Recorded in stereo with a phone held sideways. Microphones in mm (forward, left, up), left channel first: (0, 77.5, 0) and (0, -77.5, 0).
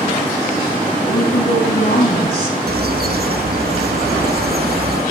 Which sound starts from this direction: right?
A bird, at 2.7 s.